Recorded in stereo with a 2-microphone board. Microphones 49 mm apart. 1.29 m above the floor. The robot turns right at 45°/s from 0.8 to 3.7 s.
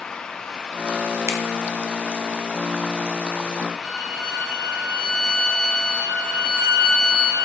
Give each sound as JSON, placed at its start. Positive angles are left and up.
{"t": 1.3, "sound": "a finger snap", "side_deg": -60, "distance_m": 0.8}
{"t": 3.8, "sound": "a violin", "side_deg": -10, "distance_m": 3.0}